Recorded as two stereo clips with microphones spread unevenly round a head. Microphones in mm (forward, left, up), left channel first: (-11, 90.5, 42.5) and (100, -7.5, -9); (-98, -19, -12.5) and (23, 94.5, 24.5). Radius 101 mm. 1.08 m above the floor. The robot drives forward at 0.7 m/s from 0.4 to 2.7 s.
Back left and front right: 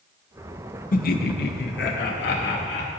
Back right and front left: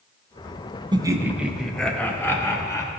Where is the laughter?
110° left, 0.9 m; by 2.9 s 150° left, 1.7 m.